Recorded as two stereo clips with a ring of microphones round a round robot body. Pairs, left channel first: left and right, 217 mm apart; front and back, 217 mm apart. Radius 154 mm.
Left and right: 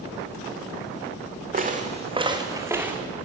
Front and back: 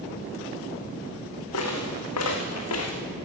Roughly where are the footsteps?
Ahead right.